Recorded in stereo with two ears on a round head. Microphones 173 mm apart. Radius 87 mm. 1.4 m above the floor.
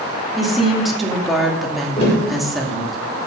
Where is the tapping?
35° left (ahead or behind), 6 m.